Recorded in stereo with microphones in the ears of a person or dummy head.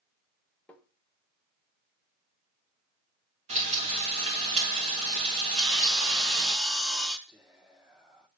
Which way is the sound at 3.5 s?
40° right (ahead or behind).